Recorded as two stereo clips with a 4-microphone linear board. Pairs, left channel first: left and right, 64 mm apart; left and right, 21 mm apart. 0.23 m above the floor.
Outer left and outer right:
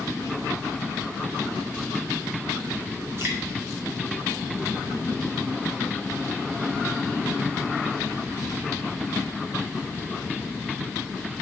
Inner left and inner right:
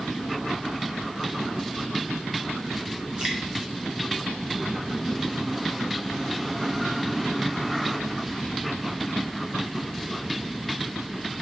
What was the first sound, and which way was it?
Dripping, 40° right (ahead or behind).